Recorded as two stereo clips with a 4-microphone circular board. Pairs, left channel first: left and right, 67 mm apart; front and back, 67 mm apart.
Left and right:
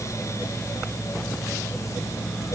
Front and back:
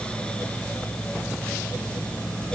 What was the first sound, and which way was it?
Only background noise.